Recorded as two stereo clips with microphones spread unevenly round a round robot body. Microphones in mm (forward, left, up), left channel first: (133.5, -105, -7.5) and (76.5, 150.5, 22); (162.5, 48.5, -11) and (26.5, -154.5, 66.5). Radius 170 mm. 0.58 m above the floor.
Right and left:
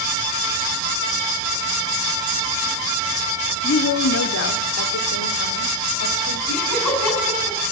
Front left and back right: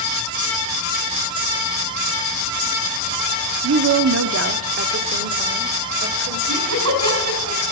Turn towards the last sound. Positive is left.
turn(degrees=-105)